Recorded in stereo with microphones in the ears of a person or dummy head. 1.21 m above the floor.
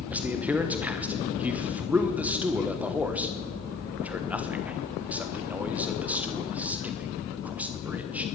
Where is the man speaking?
5° right (ahead or behind), 1.0 m.